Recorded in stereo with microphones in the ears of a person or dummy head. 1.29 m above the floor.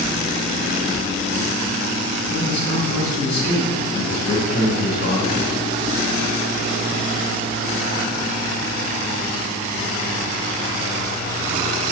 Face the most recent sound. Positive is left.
turn(degrees=55)  # may be behind; listen again after turning